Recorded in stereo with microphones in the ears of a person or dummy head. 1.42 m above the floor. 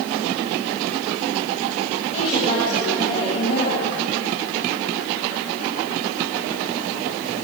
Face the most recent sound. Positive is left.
turn(degrees=30)  # may be behind; listen again after turning